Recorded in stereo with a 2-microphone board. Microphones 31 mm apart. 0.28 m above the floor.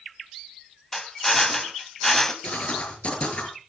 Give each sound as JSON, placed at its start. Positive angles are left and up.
{"t": 0.9, "sound": "a drill", "side_deg": 15, "distance_m": 2.5}
{"t": 2.4, "sound": "writing", "side_deg": 45, "distance_m": 6.0}